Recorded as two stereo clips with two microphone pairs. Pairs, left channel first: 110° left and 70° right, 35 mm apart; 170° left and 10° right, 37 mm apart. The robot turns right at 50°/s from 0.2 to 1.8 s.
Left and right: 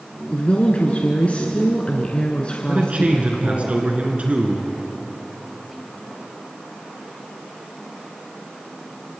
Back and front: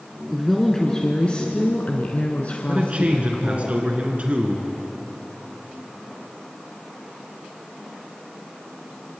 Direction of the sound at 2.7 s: 45° right.